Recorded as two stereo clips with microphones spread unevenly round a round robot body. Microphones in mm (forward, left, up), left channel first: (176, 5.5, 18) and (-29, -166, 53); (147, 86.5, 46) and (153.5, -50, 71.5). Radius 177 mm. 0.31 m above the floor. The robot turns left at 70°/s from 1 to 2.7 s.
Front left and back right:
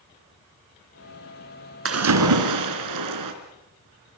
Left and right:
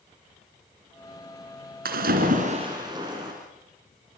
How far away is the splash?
About 3.5 m.